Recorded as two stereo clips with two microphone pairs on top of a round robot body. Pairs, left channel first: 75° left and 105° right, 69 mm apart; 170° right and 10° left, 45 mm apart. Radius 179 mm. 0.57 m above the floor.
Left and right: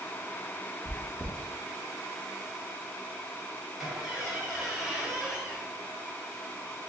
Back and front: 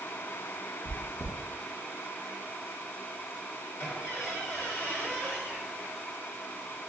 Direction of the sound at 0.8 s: 170° left.